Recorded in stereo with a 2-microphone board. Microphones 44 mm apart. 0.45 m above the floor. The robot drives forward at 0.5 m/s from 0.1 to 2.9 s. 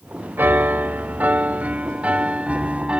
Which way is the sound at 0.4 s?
50° right (ahead or behind).